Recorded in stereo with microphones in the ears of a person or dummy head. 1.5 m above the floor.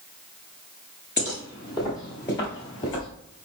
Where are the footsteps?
20° right (ahead or behind), 1.5 m; by 3.1 s 25° left (ahead or behind), 1.6 m.